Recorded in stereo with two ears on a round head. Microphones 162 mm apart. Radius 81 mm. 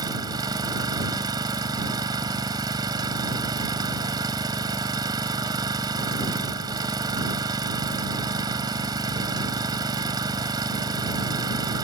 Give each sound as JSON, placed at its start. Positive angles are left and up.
{"t": 0.0, "sound": "an engine running", "side_deg": -20}